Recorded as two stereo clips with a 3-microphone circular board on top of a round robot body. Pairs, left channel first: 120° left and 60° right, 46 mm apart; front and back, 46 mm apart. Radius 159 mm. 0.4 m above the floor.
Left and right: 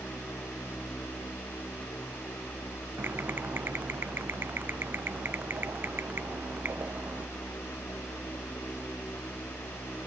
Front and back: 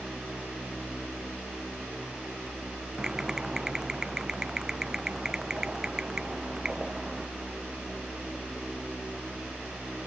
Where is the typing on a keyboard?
105° right.